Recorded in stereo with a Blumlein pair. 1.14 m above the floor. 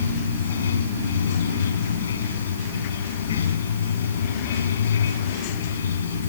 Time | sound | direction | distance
0.0 | running water | 65° left | ?